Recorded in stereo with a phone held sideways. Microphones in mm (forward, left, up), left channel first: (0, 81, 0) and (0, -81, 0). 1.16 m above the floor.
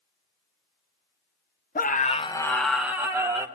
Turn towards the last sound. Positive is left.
turn(degrees=-20)  # may be behind; listen again after turning